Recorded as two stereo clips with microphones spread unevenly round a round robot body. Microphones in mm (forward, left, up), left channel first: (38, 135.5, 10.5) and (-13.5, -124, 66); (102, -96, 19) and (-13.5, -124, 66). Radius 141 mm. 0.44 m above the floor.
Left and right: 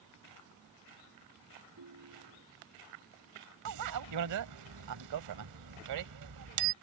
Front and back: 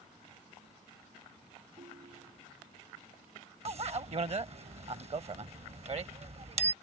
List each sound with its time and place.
1.8 s a ringtone: 130° right
3.6 s a bicycle bell: 125° right